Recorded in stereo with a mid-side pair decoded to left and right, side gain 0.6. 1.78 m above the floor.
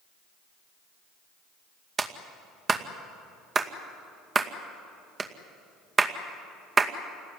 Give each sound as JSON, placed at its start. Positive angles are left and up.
{"t": 2.0, "sound": "a clap", "azimuth_deg": -30, "distance_m": 2.0}